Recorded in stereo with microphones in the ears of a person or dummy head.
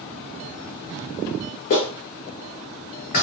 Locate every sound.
1.7 s a clap: 50° left (ahead or behind), 1.2 m